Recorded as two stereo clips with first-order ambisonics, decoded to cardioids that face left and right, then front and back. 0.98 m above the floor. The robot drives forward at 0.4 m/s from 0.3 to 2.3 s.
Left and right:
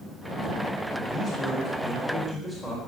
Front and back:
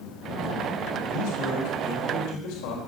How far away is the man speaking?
About 5.5 m.